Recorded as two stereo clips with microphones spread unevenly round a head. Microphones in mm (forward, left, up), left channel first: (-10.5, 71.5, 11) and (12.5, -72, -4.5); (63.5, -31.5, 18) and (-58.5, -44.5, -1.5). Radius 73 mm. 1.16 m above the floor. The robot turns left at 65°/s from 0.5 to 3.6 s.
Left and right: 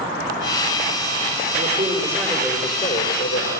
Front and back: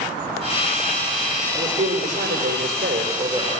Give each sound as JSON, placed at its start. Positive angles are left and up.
{"t": 1.6, "sound": "a man speaking", "azimuth_deg": -120, "distance_m": 6.0}